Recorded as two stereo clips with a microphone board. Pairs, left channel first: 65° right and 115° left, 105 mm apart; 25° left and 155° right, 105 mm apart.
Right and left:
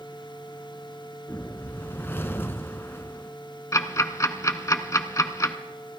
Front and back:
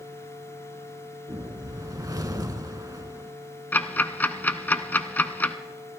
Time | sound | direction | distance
1.3 | a whoosh | 125° right | 0.7 m
3.7 | ticking | 35° right | 0.7 m